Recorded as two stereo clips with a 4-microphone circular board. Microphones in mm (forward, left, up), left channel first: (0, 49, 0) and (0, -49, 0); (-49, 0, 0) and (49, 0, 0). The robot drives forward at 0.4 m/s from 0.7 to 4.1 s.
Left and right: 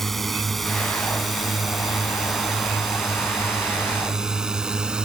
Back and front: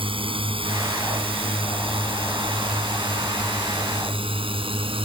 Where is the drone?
Straight ahead; by 5.0 s 10° right.